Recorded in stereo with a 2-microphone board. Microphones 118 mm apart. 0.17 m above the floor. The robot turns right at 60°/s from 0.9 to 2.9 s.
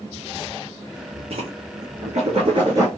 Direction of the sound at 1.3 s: 60° right (ahead or behind).